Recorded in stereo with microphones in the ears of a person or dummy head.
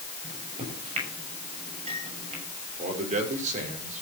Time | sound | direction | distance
0.2 | a microwave | 40° right (ahead or behind) | 6 m
2.8 | a man speaking | 40° right (ahead or behind) | 5 m